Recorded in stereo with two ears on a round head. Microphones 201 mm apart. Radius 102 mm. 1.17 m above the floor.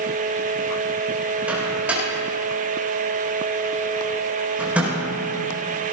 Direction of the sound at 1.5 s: 5° right (ahead or behind).